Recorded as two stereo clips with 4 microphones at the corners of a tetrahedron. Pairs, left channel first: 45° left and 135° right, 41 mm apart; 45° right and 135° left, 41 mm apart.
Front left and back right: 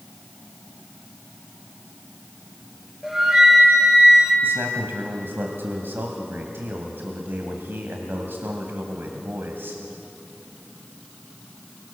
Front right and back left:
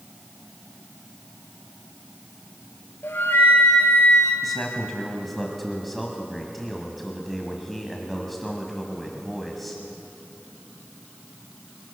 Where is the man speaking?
135° right, 2.5 m.